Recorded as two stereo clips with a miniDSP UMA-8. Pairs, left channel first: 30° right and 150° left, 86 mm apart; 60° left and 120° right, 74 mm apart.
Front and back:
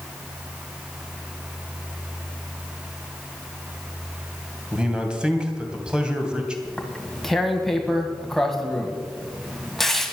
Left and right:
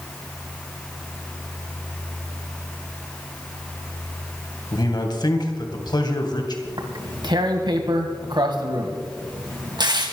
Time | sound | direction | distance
4.7 | a man speaking | 70° left | 2.5 m
6.7 | tearing paper | 115° right | 1.6 m